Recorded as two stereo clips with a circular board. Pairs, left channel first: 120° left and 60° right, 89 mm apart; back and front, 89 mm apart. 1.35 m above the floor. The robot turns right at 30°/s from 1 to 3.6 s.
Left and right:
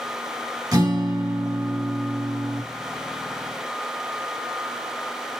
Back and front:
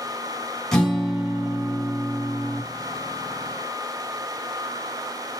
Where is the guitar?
95° right, 2.5 m; by 2.6 s 50° right, 2.5 m.